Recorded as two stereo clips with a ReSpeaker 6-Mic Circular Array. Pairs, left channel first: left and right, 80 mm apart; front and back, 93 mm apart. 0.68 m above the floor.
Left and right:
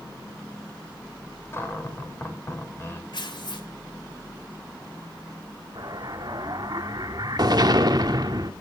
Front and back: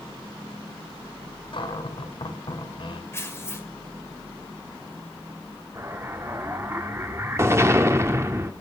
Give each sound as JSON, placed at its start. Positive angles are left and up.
{"t": 1.5, "sound": "a cupboard door", "azimuth_deg": 30, "distance_m": 3.0}
{"t": 3.1, "sound": "tearing paper", "azimuth_deg": 65, "distance_m": 2.0}
{"t": 5.8, "sound": "an explosion", "azimuth_deg": -120, "distance_m": 1.4}